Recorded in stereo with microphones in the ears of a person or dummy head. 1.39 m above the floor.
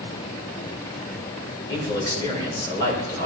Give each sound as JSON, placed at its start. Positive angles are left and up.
{"t": 1.7, "sound": "a man speaking", "side_deg": 20, "distance_m": 5.5}